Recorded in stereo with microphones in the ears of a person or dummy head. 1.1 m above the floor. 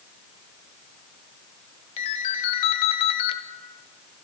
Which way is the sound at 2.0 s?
40° left (ahead or behind).